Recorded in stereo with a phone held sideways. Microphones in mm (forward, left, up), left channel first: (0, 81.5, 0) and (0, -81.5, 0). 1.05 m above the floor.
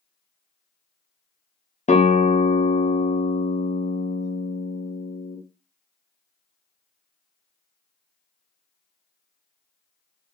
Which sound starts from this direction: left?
A guitar, at 1.9 s.